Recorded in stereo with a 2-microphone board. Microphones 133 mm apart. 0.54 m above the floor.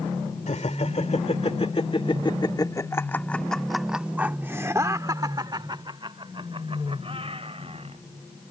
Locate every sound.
0.5 s laughter: 60° left (ahead or behind); by 8.0 s 50° right (ahead or behind)